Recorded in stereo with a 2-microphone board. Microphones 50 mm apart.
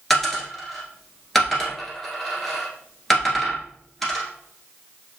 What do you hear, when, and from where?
0.1 s a dropped coin: 5° left (ahead or behind), 1.5 m